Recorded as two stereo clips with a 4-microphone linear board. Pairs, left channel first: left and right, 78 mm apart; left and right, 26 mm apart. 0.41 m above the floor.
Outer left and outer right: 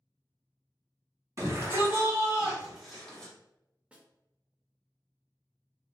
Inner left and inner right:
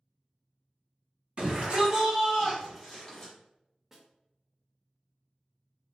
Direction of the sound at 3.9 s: 15° right (ahead or behind).